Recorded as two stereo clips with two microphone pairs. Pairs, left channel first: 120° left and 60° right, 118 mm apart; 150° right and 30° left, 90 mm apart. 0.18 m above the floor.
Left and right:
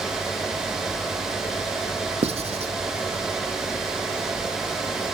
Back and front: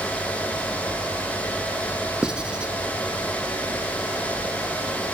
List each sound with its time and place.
2.2 s writing: 50° right, 0.5 m